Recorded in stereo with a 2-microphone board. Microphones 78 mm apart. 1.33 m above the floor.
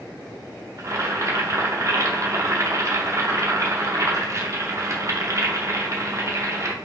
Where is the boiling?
40° right (ahead or behind), 0.5 m.